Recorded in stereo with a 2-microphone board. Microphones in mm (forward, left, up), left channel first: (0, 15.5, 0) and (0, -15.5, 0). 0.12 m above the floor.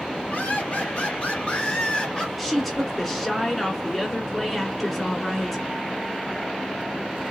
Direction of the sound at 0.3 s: 45° left (ahead or behind).